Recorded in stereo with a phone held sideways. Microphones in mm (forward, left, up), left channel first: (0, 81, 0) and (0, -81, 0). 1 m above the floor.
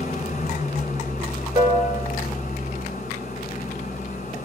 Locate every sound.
0.0 s an engine running: 45° left (ahead or behind), 8.5 m
1.6 s a piano: 25° right (ahead or behind), 4.5 m